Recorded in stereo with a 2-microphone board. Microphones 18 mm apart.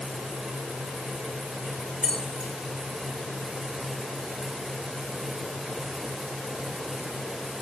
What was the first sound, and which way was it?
Keys jangling, 60° right (ahead or behind).